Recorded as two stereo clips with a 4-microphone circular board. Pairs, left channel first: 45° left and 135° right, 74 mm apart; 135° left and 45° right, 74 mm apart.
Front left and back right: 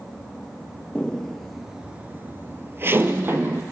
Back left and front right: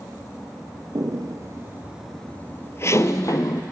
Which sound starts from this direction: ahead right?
Footsteps, at 0.9 s.